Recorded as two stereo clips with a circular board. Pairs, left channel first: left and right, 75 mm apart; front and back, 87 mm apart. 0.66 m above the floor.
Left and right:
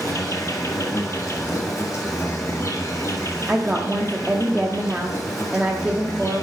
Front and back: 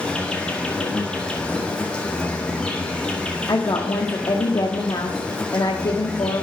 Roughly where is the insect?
Left.